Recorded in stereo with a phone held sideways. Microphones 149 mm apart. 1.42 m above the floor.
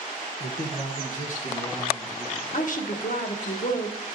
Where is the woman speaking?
60° left (ahead or behind), 1.2 m.